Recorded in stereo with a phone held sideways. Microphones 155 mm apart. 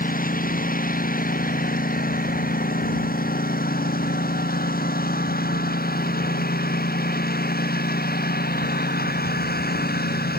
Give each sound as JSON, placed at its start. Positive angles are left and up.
{"t": 0.0, "sound": "a lawn mower", "side_deg": 65}